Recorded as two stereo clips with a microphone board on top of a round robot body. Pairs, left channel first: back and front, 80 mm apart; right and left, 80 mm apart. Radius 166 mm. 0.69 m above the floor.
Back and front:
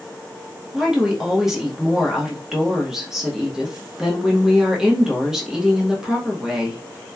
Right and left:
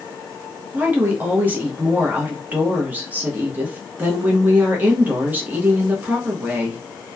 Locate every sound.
0.7 s a woman speaking: 75° left, 0.9 m